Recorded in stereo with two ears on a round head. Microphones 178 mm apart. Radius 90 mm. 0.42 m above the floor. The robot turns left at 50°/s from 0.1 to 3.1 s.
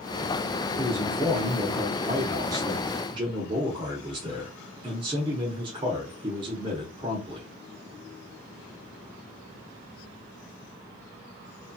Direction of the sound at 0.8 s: 20° left (ahead or behind).